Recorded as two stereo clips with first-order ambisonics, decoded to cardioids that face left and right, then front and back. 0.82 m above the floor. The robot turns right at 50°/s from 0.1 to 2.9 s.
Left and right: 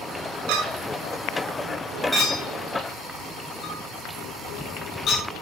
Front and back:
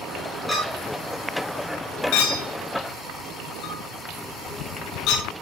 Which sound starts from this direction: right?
A clink, at 0.5 s.